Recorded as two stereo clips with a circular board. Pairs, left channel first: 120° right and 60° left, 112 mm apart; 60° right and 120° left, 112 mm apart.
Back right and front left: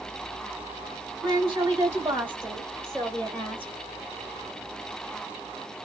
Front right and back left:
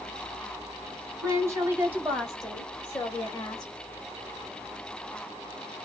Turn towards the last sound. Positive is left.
turn(degrees=-60)